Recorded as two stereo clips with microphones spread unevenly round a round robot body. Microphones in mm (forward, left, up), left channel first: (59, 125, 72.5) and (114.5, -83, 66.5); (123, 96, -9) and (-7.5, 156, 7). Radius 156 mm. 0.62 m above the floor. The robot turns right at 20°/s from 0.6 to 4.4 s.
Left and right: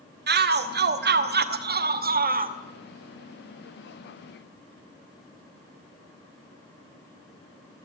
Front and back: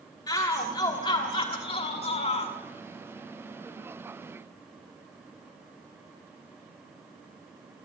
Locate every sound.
0.3 s a shout: 80° right, 1.0 m; by 2.5 s 40° right, 1.0 m